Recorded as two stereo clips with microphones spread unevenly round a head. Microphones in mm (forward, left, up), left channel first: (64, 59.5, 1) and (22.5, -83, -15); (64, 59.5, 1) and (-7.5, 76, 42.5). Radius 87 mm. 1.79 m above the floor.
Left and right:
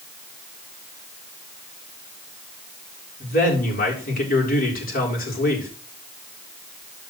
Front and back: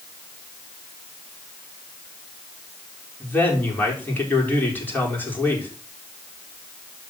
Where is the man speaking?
50° left, 6 m.